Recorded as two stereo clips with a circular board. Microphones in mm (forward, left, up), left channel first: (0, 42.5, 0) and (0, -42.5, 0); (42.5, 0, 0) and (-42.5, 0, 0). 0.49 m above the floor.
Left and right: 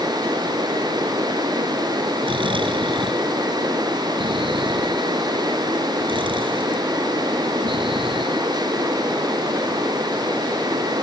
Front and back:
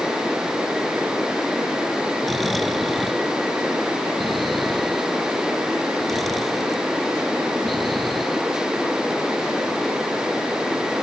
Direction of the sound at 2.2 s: 90° right.